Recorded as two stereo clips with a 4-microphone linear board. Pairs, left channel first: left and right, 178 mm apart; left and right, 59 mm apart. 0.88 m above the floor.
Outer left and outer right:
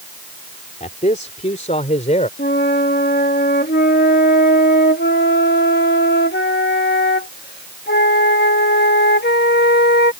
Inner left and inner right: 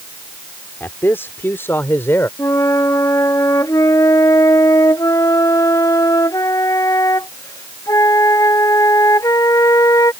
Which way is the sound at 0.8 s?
40° left (ahead or behind).